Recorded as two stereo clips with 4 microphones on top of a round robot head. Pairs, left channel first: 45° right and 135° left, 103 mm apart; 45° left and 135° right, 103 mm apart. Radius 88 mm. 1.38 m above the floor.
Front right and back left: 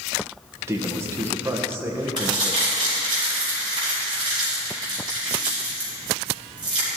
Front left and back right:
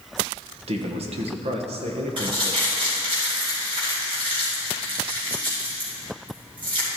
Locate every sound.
0.7 s a man speaking: 160° right, 1.2 m
2.2 s crumpling: 175° right, 4 m